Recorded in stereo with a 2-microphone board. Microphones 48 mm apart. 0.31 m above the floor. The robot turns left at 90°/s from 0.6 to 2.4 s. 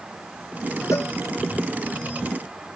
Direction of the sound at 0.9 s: 80° left.